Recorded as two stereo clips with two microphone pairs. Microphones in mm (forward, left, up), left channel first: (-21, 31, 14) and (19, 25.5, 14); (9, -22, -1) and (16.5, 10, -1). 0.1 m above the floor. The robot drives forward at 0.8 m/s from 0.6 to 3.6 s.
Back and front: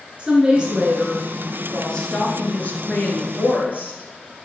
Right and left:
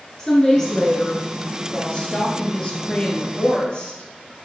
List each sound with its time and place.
0.2 s a woman speaking: 50° right, 1.3 m; by 4.5 s 165° right, 2.5 m